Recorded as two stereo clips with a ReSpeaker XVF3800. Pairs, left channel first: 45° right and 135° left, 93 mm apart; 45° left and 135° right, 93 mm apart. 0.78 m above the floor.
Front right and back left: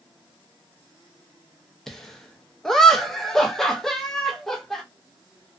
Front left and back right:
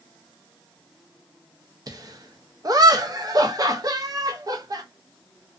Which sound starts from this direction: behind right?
Laughter, at 1.9 s.